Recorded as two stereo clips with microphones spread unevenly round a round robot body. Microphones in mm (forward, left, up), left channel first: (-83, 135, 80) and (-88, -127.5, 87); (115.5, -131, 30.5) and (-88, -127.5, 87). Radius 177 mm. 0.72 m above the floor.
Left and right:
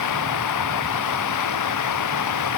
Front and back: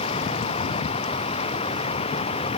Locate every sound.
0.0 s running water: 70° left